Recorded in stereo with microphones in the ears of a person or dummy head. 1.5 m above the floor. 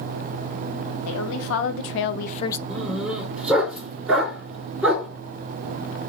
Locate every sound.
1.1 s a woman speaking: 75° left (ahead or behind), 1.6 m; by 2.6 s 15° left (ahead or behind), 0.5 m
2.7 s a dog barking: 5° right (ahead or behind), 4 m